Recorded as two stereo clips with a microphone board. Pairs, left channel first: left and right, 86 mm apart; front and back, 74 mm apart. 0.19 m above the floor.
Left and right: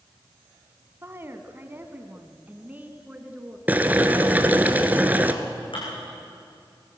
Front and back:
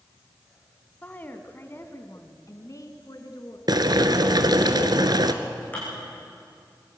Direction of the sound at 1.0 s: 55° right.